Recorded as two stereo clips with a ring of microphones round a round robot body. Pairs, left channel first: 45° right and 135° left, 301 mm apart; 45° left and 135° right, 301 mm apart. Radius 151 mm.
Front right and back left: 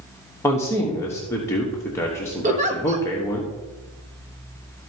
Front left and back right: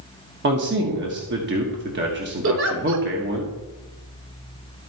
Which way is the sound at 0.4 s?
120° right.